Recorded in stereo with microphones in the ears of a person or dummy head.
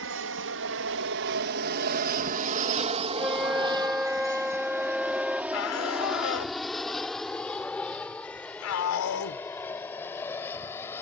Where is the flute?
Centre (ahead or behind).